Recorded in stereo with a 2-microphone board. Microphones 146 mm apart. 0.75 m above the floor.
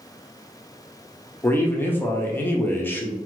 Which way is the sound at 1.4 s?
15° left (ahead or behind).